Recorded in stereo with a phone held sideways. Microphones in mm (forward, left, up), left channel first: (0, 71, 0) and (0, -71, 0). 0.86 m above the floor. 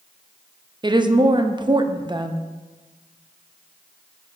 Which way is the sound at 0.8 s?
30° right (ahead or behind).